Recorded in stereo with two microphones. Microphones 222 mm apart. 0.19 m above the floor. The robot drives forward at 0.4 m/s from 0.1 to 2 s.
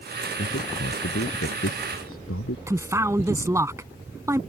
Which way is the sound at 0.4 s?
75° left (ahead or behind).